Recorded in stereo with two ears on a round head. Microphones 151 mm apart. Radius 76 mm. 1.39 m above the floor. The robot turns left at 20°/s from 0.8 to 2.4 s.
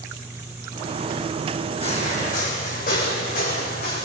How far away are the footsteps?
About 5.5 m.